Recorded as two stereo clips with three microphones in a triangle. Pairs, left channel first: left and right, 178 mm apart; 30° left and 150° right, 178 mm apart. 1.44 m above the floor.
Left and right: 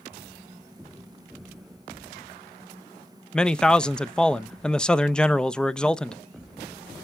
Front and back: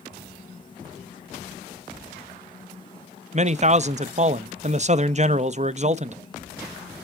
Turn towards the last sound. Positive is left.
turn(degrees=175)